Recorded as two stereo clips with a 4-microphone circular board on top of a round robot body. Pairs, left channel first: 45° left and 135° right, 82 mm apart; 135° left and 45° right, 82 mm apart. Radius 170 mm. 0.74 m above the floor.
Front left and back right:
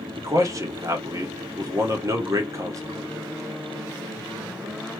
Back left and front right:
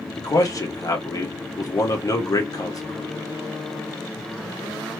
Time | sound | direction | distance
0.2 | a man speaking | straight behind | 1.8 m